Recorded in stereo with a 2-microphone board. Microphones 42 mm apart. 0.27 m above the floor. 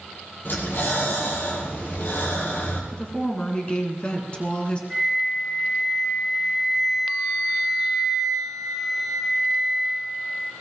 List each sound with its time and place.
0.5 s breathing: 55° left (ahead or behind), 4.5 m
2.9 s a woman speaking: 25° left (ahead or behind), 3 m
4.9 s a flute: centre (ahead or behind), 1.8 m